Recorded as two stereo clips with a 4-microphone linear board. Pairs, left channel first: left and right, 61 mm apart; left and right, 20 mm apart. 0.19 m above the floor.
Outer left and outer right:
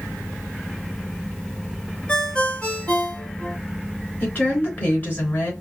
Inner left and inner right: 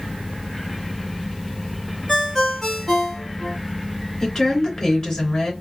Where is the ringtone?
20° left (ahead or behind), 1.6 m.